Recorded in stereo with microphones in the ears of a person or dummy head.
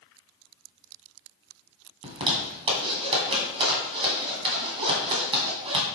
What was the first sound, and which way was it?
A zipper, 25° right (ahead or behind).